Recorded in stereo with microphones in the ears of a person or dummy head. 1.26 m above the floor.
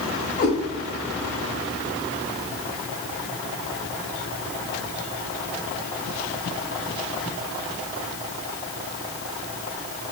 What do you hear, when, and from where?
0.4 s a cat meowing: 35° left (ahead or behind), 0.9 m